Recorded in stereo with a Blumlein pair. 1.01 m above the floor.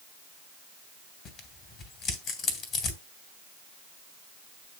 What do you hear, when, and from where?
1.2 s tearing paper: 30° left, 2.5 m